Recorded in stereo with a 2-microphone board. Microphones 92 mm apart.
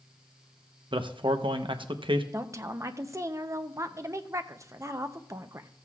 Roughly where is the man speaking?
Right.